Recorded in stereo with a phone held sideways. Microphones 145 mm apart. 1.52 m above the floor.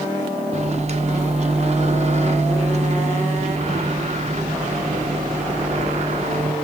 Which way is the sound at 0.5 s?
45° right (ahead or behind).